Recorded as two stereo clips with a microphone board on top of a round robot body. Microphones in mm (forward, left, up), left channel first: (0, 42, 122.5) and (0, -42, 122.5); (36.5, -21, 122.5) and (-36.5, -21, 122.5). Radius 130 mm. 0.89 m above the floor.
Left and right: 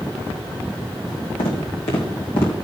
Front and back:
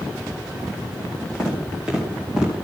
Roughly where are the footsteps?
Left.